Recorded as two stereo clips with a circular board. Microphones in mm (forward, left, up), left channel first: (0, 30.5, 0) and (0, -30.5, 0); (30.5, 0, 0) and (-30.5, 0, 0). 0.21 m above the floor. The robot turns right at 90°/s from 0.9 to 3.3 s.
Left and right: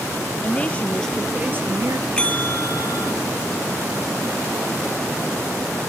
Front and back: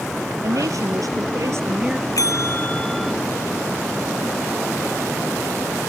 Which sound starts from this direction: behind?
A woman speaking, at 0.4 s.